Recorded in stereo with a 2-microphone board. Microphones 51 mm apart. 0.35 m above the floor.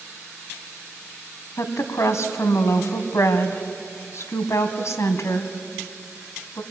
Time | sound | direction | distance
1.6 | a woman speaking | 65° left (ahead or behind) | 2.5 m